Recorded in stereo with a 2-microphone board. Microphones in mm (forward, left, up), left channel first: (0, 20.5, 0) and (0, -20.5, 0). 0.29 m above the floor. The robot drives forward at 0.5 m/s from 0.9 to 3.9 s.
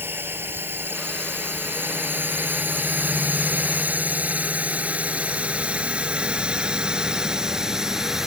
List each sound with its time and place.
0.0 s a drone: 65° right (ahead or behind); by 8.3 s 10° right (ahead or behind)